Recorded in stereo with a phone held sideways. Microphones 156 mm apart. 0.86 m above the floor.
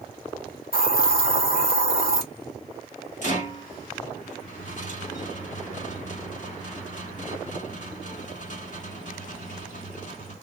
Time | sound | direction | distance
0.7 | a hiss | 65° left (ahead or behind) | 1.7 m
3.2 | a rattle | 50° left (ahead or behind) | 1.5 m